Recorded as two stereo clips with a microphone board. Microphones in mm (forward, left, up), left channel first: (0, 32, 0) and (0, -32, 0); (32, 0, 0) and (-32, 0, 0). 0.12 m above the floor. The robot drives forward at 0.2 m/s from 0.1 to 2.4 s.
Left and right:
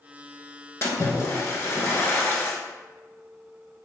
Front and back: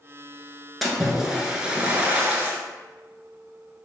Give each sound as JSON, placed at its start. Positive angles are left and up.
{"t": 0.8, "sound": "a splash", "azimuth_deg": 90, "distance_m": 0.6}